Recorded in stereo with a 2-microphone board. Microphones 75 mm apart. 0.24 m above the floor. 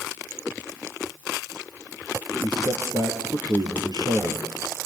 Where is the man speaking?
70° right (ahead or behind), 4 m.